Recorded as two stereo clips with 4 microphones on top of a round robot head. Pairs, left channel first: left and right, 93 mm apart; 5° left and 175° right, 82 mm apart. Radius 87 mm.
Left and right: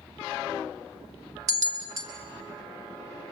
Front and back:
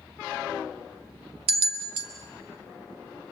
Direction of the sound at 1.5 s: 155° right.